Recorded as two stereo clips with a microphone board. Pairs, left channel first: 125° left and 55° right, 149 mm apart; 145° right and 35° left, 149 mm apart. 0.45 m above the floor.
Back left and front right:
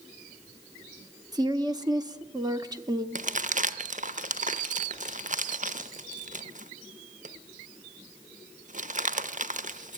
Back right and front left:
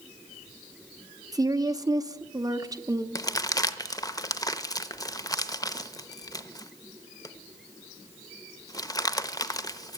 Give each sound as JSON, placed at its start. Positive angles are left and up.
{"t": 1.3, "sound": "a woman speaking", "azimuth_deg": -15, "distance_m": 0.8}
{"t": 3.1, "sound": "crumpling", "azimuth_deg": -80, "distance_m": 0.8}